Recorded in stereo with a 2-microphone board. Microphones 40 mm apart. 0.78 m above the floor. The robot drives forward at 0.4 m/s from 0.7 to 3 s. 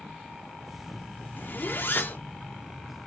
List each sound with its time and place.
1.4 s a zipper: 60° left (ahead or behind), 1.6 m; by 2.2 s 65° left (ahead or behind), 1.5 m